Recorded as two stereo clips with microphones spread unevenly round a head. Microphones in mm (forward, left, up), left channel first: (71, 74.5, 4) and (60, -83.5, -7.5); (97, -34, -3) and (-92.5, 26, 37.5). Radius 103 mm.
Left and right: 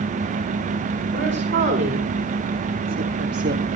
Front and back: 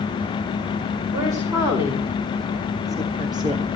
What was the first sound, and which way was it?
A woman speaking, 125° right.